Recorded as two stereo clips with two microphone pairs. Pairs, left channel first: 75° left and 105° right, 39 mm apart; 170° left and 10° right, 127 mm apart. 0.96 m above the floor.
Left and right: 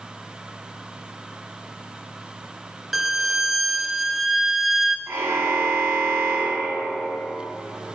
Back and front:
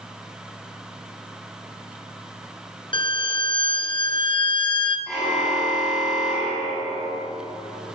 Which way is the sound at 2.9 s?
170° left.